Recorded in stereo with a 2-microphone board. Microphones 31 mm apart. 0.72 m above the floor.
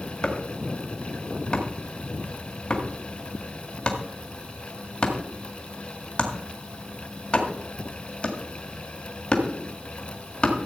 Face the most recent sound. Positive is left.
turn(degrees=30)  # may be behind; listen again after turning